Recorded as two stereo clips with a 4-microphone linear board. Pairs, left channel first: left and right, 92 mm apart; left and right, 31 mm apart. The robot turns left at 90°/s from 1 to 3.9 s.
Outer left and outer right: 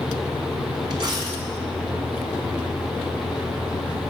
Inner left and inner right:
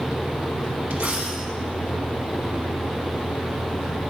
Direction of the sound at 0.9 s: 115° right.